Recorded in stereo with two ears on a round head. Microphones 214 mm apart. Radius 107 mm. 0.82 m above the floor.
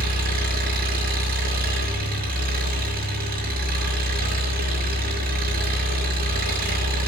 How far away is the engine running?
About 6 m.